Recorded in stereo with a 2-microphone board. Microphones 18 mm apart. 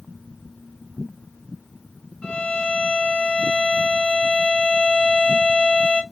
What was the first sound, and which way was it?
A violin, 60° left (ahead or behind).